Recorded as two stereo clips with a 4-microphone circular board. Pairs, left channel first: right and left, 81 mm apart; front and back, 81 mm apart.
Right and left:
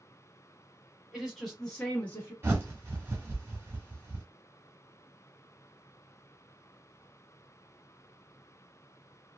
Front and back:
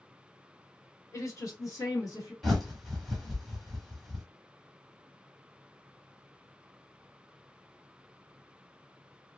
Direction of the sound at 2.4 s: 85° left.